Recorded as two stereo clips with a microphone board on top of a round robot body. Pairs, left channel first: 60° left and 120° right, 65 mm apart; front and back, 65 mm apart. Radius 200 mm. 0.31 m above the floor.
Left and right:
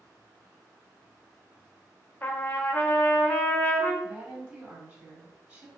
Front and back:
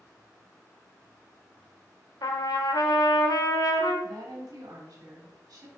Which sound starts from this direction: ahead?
A trumpet, at 2.2 s.